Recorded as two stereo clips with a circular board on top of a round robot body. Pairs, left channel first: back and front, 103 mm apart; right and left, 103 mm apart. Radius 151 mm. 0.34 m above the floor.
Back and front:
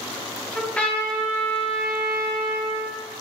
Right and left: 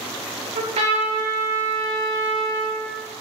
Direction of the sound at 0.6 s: 100° left.